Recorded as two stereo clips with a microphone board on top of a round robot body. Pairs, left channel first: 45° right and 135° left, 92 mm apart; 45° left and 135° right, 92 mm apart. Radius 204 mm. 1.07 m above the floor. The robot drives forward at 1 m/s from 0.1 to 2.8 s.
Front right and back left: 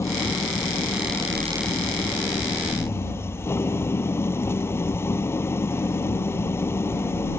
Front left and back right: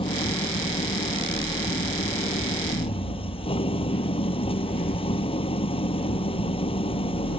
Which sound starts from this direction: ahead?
An engine running, at 0.0 s.